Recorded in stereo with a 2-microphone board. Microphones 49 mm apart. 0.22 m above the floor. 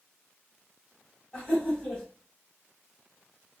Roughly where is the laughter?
Left.